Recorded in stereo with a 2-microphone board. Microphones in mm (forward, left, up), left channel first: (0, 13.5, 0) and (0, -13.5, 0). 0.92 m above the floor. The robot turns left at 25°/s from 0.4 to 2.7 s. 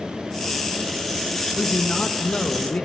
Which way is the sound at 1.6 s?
55° left (ahead or behind).